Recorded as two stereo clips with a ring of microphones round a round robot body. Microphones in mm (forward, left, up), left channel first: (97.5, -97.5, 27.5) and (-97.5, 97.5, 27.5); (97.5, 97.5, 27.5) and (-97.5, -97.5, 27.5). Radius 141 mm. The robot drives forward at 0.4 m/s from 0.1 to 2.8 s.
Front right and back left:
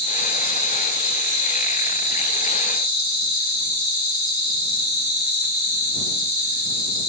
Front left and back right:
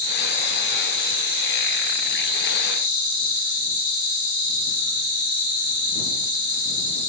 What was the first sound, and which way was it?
An insect, 80° left.